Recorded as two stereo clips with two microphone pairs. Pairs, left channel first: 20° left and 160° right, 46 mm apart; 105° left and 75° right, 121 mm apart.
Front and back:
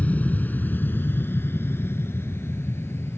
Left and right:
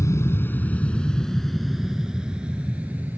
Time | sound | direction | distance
0.0 | an aircraft | 55° left | ?